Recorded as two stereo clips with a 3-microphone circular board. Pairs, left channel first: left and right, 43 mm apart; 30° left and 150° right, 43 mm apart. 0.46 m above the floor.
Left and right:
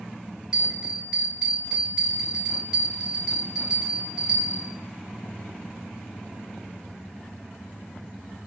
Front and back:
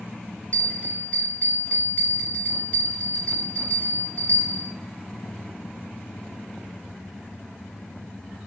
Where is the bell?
20° right, 1.1 m.